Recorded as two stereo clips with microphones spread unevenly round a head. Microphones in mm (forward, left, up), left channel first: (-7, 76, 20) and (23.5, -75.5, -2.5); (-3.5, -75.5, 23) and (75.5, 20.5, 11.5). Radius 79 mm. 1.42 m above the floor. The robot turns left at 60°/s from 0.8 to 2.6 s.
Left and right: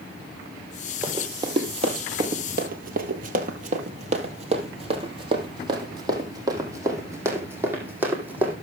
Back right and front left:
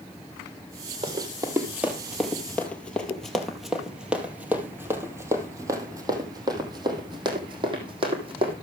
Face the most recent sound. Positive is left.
turn(degrees=5)